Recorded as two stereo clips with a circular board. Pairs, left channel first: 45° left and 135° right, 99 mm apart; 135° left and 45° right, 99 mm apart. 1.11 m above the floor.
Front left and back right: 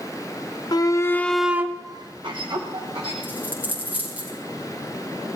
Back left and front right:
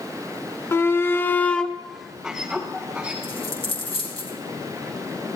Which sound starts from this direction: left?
A shout, at 0.7 s.